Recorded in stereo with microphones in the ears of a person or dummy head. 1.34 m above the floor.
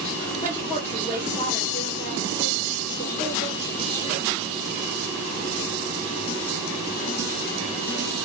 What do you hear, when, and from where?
0.4 s a woman speaking: 30° left (ahead or behind), 1.7 m